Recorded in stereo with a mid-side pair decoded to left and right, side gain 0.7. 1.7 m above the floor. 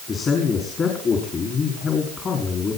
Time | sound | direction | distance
0.1 | a man speaking | 35° left | 5 m